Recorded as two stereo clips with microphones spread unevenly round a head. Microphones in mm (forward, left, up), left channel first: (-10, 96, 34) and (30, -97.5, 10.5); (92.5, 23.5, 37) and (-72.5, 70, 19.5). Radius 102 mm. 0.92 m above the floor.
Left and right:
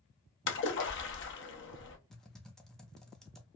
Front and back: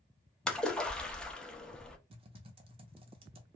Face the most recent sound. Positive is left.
turn(degrees=-165)